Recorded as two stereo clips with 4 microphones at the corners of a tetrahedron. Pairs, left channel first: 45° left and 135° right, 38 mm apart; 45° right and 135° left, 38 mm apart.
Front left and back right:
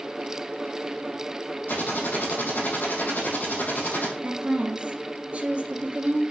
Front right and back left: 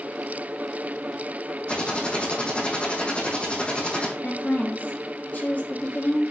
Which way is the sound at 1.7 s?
15° left.